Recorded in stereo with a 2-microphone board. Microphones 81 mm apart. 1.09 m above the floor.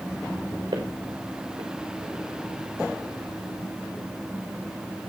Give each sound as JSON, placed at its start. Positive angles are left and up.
{"t": 0.7, "sound": "footsteps", "side_deg": -80, "distance_m": 6.5}